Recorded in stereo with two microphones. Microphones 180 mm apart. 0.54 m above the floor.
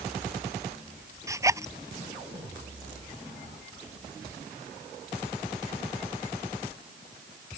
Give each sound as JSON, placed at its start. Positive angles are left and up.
{"t": 1.3, "sound": "a zipper", "side_deg": -15}